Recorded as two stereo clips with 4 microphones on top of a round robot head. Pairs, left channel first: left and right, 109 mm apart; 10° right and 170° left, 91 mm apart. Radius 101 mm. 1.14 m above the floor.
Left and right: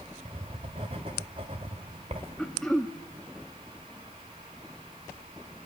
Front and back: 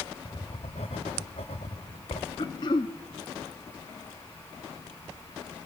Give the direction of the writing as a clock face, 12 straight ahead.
1 o'clock.